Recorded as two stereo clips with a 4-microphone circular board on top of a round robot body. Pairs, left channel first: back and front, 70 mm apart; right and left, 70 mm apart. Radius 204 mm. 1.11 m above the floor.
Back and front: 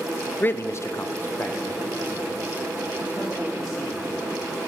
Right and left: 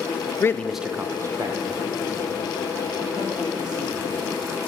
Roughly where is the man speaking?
Behind right.